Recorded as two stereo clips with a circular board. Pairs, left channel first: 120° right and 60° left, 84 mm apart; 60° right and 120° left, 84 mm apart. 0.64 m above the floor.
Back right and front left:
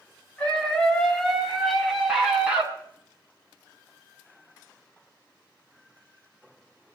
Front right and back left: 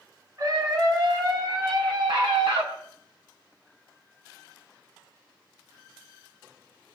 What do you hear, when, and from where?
0.4 s a scream: 165° left, 6 m; by 2.7 s 135° left, 6 m